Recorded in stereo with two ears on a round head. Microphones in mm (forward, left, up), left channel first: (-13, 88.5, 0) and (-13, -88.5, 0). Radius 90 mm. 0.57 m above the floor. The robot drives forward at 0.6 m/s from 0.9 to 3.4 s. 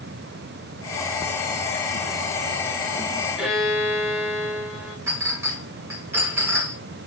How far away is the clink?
About 5 m.